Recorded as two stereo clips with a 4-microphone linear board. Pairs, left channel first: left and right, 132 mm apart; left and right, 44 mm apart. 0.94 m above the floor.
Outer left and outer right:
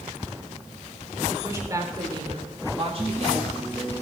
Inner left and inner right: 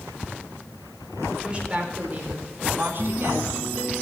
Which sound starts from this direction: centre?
A woman speaking, at 1.3 s.